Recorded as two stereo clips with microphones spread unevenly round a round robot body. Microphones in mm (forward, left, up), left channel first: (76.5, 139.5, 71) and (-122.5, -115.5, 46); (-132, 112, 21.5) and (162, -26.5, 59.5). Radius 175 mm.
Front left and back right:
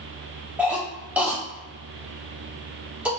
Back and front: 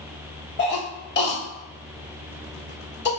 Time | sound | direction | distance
0.6 | a cough | 155° left | 1.3 m